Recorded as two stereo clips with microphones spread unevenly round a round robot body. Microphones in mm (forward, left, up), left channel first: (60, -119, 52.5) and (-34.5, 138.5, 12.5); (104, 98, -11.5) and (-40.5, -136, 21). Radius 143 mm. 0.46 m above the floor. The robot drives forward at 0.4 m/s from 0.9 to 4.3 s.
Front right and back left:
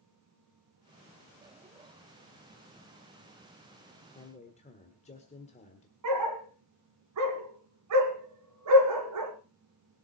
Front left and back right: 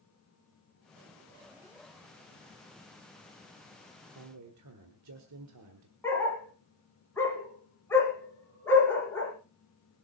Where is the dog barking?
140° left, 2.5 m.